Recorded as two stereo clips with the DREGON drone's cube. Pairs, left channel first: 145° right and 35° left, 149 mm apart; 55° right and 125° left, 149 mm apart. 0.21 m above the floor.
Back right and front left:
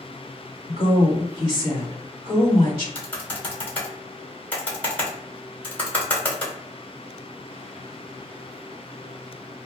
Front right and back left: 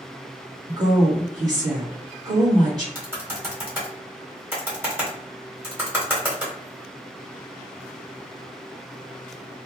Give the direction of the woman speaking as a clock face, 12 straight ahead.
10 o'clock.